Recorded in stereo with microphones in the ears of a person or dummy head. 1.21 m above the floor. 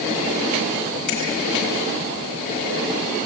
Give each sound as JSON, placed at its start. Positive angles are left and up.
{"t": 1.1, "sound": "a finger snap", "side_deg": 70, "distance_m": 8.0}